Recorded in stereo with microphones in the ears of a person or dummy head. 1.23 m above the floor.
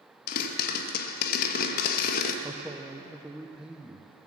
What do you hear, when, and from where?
0.3 s a pop: 55° left (ahead or behind), 1.1 m
2.4 s a man speaking: 5° right (ahead or behind), 0.5 m